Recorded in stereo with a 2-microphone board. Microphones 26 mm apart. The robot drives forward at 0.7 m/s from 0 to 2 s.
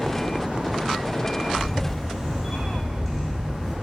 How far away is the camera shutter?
About 3 m.